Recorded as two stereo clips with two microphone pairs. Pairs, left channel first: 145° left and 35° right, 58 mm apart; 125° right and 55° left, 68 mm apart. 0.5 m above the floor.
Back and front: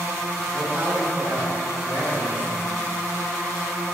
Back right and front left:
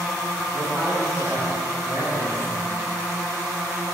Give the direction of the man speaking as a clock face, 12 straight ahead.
11 o'clock.